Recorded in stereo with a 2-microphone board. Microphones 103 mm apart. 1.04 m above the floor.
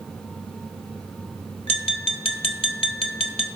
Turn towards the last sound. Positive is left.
turn(degrees=70)  # may be behind; listen again after turning